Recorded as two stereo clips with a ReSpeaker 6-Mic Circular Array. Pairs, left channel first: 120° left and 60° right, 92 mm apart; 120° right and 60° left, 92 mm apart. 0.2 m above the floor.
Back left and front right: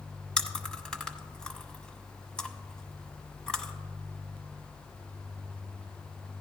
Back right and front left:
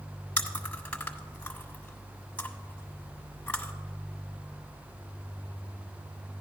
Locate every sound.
0.4 s chewing: straight behind, 1.2 m